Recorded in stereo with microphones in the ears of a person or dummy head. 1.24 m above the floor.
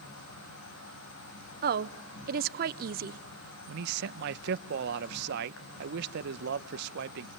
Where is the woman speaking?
45° right (ahead or behind), 0.6 m.